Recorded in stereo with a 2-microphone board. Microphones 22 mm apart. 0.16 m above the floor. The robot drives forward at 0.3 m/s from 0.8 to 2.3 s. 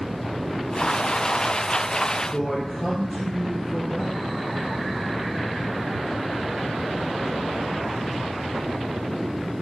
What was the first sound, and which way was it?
A man speaking, 15° left (ahead or behind).